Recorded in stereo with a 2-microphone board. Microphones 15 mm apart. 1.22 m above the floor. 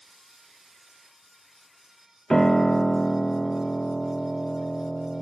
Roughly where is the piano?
Left.